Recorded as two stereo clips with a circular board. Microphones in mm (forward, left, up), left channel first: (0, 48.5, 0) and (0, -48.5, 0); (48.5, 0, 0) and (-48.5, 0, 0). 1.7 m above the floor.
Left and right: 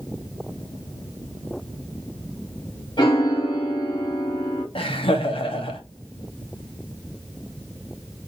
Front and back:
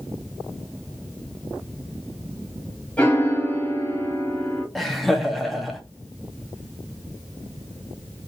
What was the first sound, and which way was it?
A piano, 75° left.